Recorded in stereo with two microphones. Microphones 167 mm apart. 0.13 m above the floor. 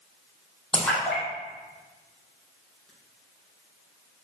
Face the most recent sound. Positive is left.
turn(degrees=5)  # may be behind; listen again after turning